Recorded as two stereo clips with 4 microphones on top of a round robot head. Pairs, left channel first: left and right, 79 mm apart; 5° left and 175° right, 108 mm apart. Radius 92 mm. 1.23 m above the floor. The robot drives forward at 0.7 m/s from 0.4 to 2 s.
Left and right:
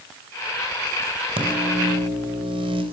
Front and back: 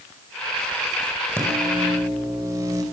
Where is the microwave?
105° right, 4.5 m; by 2.8 s 110° right, 5 m.